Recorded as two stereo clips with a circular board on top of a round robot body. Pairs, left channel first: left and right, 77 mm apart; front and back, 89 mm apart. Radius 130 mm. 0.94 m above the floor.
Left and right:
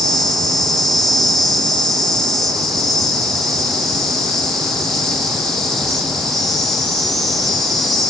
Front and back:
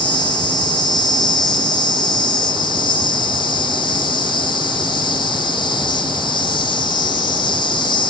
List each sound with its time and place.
0.0 s an insect: 5° left, 1.1 m